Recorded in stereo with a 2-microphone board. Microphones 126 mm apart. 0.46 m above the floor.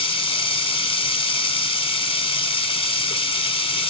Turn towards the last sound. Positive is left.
turn(degrees=40)  # may be behind; listen again after turning